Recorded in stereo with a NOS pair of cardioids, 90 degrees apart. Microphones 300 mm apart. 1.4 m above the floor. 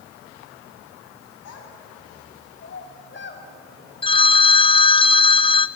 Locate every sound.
1.4 s a child speaking: 55° left, 8 m; by 3.5 s 35° left, 6.5 m
4.0 s a phone ringing: 20° left, 0.8 m